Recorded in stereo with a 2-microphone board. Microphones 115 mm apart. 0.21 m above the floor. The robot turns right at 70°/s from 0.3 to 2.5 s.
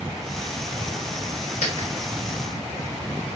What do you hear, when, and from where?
1.6 s a dropped coin: 85° left, 1.0 m; by 1.9 s 70° left (ahead or behind), 1.0 m